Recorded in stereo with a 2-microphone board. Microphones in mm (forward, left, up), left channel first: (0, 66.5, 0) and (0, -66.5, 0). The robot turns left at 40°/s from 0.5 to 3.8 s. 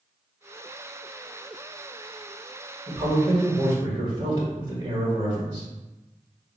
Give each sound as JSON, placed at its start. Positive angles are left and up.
{"t": 2.9, "sound": "a man speaking", "azimuth_deg": -65, "distance_m": 1.3}